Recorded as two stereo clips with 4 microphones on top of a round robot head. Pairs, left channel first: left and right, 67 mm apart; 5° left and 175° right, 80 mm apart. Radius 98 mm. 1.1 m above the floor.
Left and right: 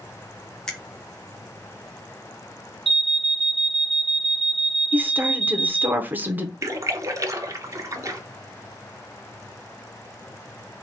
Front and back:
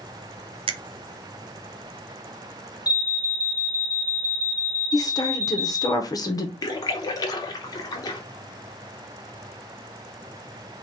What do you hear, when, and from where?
0.7 s a finger snap: 170° left, 0.6 m
2.9 s an alarm: straight ahead, 1.1 m
4.9 s a woman speaking: 30° right, 0.8 m
6.6 s a splash: 45° right, 0.9 m